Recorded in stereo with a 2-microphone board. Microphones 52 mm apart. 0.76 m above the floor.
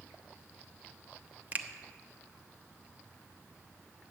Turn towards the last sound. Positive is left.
turn(degrees=-35)  # may be behind; listen again after turning